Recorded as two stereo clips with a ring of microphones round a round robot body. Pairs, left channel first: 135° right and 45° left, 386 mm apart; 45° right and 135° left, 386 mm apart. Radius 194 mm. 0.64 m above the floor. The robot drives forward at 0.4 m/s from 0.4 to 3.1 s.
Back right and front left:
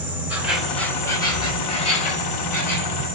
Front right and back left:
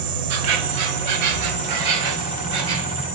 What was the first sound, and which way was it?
An insect, 130° left.